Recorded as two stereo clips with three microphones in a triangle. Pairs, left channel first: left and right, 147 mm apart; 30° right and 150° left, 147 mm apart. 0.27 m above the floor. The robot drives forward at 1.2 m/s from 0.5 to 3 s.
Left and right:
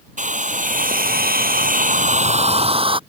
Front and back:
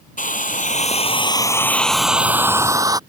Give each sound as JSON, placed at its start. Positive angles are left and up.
{"t": 0.2, "sound": "a hair dryer", "azimuth_deg": -60}